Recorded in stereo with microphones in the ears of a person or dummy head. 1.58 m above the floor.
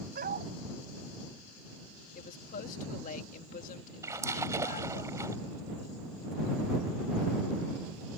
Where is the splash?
15° right (ahead or behind).